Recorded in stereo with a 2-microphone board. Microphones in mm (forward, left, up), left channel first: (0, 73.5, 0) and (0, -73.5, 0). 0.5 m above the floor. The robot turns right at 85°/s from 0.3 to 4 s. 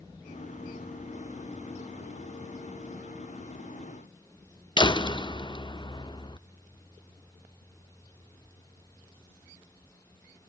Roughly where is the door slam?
Left.